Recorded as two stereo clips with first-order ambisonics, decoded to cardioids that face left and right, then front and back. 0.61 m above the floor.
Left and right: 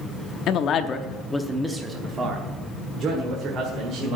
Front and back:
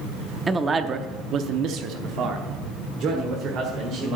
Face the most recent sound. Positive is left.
turn(degrees=-135)